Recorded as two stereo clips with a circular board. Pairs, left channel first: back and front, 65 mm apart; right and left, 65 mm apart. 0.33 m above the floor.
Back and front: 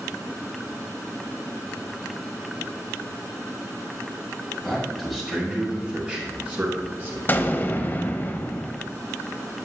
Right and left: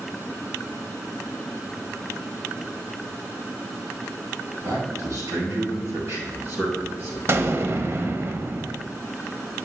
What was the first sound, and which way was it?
A man speaking, 90° left.